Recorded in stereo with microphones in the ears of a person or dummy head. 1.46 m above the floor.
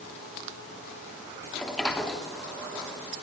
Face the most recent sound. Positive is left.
turn(degrees=5)  # may be behind; listen again after turning